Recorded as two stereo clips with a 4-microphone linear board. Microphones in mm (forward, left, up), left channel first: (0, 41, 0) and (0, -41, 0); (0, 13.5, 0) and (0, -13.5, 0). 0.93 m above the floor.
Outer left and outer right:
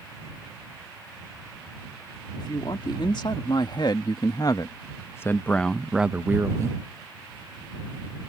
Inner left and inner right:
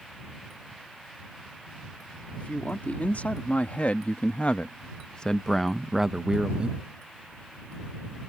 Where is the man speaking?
70° left (ahead or behind); by 6.8 s 40° right (ahead or behind).